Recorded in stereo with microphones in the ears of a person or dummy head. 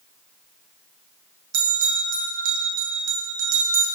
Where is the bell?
75° right (ahead or behind), 0.5 m.